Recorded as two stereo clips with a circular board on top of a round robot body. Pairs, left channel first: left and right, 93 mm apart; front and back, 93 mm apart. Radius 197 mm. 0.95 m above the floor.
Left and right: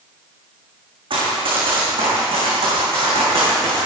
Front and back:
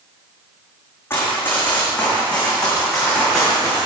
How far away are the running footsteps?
About 3.5 m.